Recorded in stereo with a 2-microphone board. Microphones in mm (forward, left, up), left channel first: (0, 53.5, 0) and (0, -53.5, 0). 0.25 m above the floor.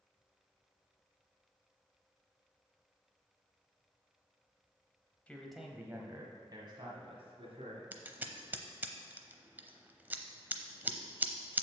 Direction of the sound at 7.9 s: 20° right (ahead or behind).